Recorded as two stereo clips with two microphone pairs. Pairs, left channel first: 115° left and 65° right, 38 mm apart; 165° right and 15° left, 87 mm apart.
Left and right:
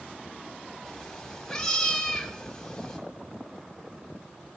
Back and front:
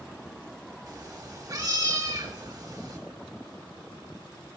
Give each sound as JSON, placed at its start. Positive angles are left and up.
{"t": 0.9, "sound": "a cat meowing", "azimuth_deg": 45, "distance_m": 1.6}